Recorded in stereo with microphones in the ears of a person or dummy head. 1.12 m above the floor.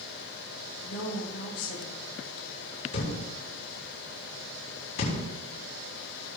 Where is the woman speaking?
70° left (ahead or behind), 4 m.